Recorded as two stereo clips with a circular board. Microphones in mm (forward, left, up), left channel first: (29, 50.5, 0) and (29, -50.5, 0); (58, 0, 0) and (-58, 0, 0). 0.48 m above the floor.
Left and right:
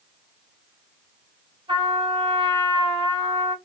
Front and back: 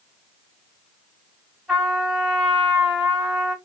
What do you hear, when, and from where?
1.7 s a trumpet: 85° right, 1.9 m